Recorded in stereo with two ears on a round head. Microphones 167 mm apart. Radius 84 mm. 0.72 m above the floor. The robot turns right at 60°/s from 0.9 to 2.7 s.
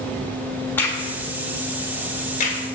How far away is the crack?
About 1.3 m.